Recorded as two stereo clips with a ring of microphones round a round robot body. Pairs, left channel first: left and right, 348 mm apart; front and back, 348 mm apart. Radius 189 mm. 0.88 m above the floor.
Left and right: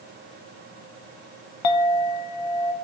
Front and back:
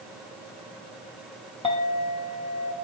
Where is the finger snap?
No finger snap in this recording.